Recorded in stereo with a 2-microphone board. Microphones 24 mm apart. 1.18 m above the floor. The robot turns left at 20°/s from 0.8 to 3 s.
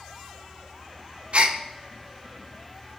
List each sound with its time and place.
1.3 s a gasp: 65° right (ahead or behind), 0.5 m